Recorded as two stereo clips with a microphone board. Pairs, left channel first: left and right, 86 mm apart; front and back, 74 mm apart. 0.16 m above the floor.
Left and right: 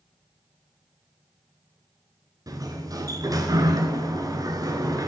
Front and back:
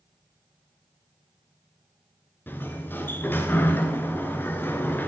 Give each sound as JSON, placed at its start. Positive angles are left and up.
{"t": 2.5, "sound": "a sliding door", "azimuth_deg": -60, "distance_m": 1.4}